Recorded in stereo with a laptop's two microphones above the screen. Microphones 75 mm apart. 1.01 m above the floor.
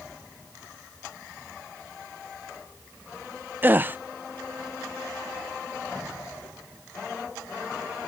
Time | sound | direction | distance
3.6 | a gasp | 25° right (ahead or behind) | 0.5 m